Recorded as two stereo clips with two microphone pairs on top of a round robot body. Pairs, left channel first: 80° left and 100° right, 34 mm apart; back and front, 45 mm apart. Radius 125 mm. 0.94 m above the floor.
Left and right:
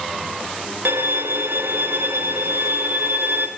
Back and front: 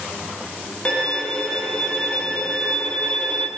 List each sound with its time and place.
0.8 s a violin: 110° right, 1.7 m